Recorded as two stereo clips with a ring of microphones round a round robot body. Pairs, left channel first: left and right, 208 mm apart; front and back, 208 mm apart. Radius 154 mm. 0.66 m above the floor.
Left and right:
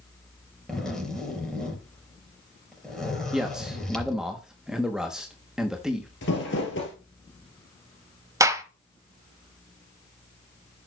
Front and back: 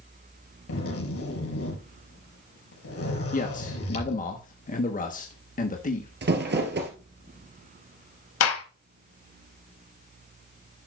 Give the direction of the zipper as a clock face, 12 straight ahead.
12 o'clock.